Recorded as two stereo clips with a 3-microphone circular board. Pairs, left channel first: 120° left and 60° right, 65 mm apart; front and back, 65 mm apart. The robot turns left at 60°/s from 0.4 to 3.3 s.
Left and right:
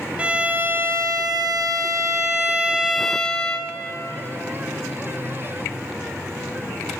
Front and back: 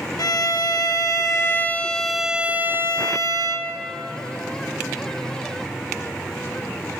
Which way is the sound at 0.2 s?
10° left.